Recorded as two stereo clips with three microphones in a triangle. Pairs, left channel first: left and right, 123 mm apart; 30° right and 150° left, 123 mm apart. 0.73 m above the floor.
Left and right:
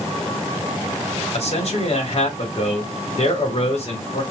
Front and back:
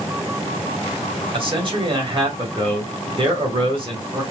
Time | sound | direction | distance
1.3 | a man speaking | 110° left | 2.5 m